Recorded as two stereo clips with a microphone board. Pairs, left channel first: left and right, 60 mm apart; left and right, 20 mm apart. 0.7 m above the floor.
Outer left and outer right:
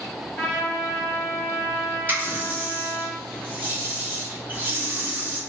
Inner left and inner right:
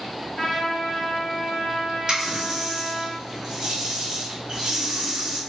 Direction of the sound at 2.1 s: 30° right (ahead or behind).